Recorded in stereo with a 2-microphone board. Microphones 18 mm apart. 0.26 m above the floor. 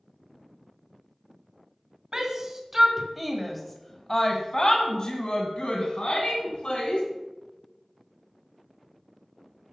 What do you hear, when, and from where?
2.1 s a shout: 35° right (ahead or behind), 1.8 m; by 7.0 s 60° left (ahead or behind), 3 m